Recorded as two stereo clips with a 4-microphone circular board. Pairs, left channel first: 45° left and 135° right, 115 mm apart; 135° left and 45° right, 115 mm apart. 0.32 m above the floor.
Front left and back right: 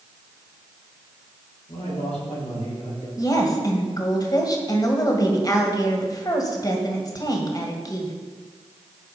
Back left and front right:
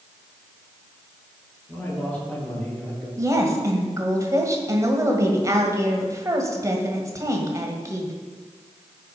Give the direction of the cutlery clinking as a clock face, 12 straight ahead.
I don't hear cutlery clinking.